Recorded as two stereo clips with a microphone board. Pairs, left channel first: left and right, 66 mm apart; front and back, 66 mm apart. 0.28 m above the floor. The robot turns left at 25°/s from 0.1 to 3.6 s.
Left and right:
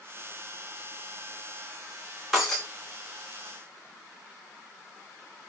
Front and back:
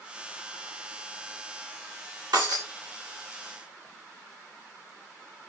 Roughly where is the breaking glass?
Behind.